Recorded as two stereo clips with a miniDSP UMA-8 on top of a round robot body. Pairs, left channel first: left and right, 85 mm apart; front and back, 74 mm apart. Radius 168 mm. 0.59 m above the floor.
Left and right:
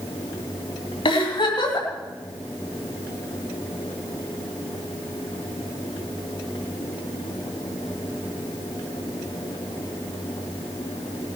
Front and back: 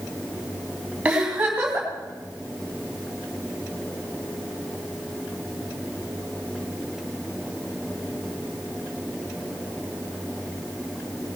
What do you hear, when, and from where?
1.1 s a giggle: 105° left, 3 m